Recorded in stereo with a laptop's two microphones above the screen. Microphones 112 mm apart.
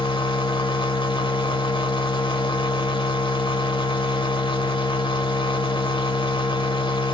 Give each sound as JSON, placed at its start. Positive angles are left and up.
{"t": 0.0, "sound": "a machine running", "side_deg": 50, "distance_m": 1.1}